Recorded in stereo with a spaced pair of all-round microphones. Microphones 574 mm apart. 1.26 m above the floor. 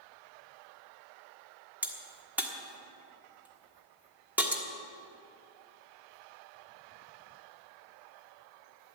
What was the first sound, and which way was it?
A crack, 5° right (ahead or behind).